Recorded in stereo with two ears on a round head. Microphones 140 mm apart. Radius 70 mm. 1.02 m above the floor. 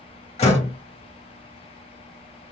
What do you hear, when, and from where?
0.4 s a door slam: 40° left (ahead or behind), 1.2 m